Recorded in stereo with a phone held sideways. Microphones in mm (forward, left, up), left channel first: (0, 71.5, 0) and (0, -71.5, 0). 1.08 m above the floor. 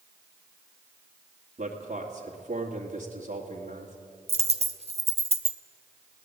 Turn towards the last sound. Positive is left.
turn(degrees=-45)  # may be behind; listen again after turning